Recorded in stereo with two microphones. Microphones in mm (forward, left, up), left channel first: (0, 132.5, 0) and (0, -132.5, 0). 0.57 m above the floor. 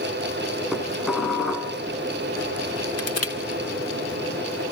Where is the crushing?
60° left (ahead or behind), 2.5 m.